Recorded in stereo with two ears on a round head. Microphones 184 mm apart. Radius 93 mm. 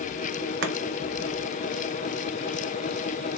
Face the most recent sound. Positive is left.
turn(degrees=-55)  # may be behind; listen again after turning